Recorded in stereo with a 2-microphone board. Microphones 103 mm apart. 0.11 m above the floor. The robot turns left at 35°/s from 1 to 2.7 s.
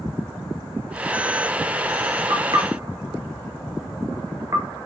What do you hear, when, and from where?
2.3 s knocking: 45° right (ahead or behind), 1.3 m; by 4.9 s 35° right (ahead or behind), 1.3 m